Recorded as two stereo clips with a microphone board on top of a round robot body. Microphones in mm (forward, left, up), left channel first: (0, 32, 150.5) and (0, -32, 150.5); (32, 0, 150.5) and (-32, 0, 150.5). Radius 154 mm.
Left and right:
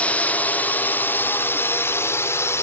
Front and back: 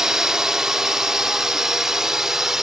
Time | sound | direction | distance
0.0 | a drone | 110° left | ?